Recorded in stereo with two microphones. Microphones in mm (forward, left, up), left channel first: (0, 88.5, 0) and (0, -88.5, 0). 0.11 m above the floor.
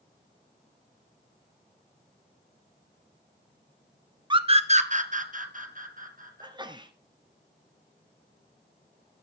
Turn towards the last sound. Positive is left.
turn(degrees=-25)  # may be behind; listen again after turning